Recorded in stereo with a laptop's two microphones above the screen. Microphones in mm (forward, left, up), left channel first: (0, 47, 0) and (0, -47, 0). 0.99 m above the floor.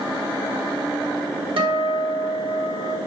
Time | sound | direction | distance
1.6 | a guitar | 65° right (ahead or behind) | 0.9 m